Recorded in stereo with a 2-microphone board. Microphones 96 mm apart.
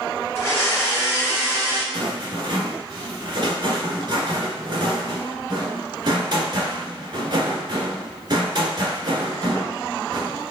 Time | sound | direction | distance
0.3 | a blender | 25° left (ahead or behind) | 1.8 m
1.9 | a rattle | 50° right (ahead or behind) | 1.5 m